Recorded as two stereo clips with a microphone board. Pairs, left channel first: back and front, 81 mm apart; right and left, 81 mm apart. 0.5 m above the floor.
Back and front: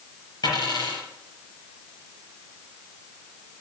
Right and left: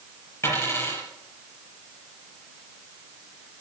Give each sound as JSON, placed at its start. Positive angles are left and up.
{"t": 0.4, "sound": "a dropped coin", "azimuth_deg": -150, "distance_m": 5.5}